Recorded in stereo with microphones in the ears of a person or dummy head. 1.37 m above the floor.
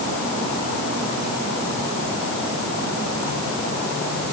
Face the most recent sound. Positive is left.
No sound to turn to.